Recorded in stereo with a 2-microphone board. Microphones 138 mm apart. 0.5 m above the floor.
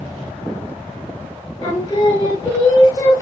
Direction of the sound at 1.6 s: 30° left (ahead or behind).